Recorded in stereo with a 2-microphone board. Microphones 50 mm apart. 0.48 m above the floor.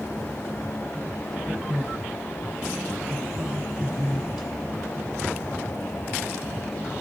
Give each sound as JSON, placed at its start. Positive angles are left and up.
{"t": 1.4, "sound": "a man speaking", "side_deg": -15, "distance_m": 3.0}